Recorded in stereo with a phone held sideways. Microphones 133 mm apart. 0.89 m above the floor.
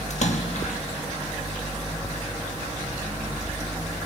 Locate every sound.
0.1 s a splash: 60° left (ahead or behind), 1.6 m